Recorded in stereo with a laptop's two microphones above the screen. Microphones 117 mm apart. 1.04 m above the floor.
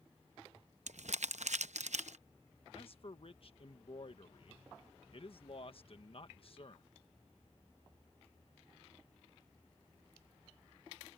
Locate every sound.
0.9 s crumpling: 80° right
2.7 s a man speaking: 55° left (ahead or behind)